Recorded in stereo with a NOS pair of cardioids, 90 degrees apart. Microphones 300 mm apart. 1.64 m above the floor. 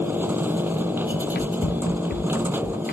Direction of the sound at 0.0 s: 5° right.